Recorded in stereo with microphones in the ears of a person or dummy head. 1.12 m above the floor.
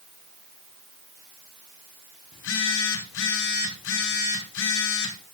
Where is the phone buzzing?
75° left (ahead or behind), 3.5 m.